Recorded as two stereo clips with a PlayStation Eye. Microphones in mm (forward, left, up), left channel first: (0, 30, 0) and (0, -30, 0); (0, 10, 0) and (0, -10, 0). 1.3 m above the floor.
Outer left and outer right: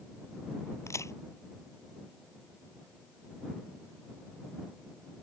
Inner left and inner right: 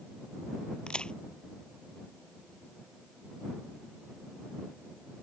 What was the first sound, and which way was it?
A crack, 55° left (ahead or behind).